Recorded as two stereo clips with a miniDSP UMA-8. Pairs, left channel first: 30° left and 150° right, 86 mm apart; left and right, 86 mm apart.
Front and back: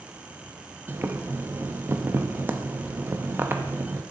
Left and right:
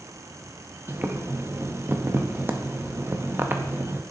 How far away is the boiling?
About 0.6 m.